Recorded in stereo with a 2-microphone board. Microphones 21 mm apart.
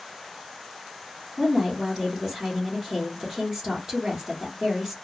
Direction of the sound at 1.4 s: 35° right (ahead or behind).